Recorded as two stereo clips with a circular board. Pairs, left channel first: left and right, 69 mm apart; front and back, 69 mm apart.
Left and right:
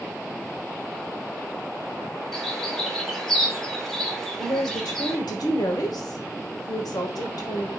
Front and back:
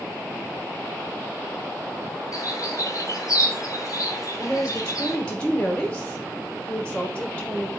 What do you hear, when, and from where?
2.3 s a bird: 5° left, 1.0 m
4.4 s a woman speaking: 75° left, 1.2 m